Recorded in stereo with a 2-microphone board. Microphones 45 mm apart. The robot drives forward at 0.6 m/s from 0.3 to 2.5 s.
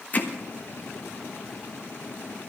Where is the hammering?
40° left (ahead or behind), 1.2 m.